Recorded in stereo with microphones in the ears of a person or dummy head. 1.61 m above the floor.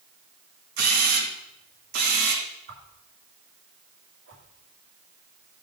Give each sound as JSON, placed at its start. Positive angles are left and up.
{"t": 0.8, "sound": "a camera shutter", "side_deg": -50, "distance_m": 2.0}
{"t": 2.7, "sound": "a whoosh", "side_deg": -60, "distance_m": 2.5}